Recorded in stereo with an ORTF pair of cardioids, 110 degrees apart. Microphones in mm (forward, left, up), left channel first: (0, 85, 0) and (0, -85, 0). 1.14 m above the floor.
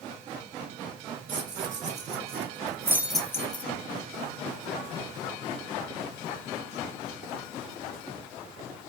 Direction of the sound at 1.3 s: 50° right.